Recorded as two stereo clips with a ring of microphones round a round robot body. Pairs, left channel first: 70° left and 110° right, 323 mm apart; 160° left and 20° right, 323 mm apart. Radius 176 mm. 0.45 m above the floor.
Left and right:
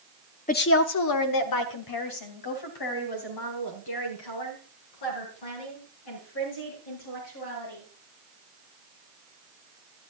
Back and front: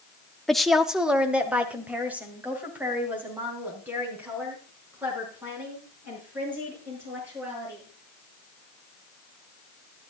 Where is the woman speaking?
70° left, 0.8 m; by 7.8 s 60° left, 9.5 m.